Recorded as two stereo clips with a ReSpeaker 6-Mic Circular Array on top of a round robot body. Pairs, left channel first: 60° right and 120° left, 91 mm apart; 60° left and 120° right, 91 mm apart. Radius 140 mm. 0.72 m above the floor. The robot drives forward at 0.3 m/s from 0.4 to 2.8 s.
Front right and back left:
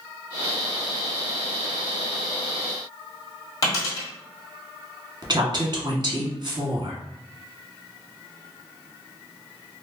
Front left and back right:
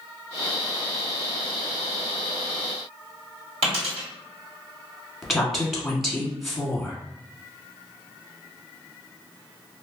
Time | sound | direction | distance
3.6 | a dropped coin | 115° right | 1.2 m
5.2 | a woman speaking | 150° left | 1.1 m